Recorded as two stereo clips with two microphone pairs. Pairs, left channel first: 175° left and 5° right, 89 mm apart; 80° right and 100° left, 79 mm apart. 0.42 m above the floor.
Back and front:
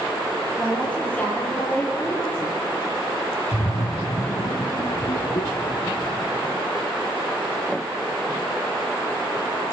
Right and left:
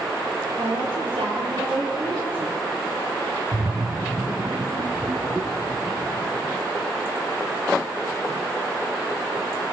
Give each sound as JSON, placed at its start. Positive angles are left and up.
{"t": 0.6, "sound": "a woman speaking", "azimuth_deg": 95, "distance_m": 9.0}
{"t": 3.5, "sound": "a splash", "azimuth_deg": 160, "distance_m": 1.3}